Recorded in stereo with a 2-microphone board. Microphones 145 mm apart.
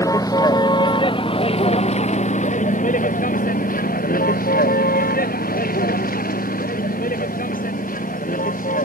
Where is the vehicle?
25° left (ahead or behind); by 8.8 s 65° left (ahead or behind).